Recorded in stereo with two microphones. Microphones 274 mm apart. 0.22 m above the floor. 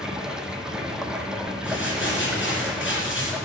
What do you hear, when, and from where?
0.0 s running water: 5° right (ahead or behind), 0.9 m
1.6 s crumpling: 45° left (ahead or behind), 3 m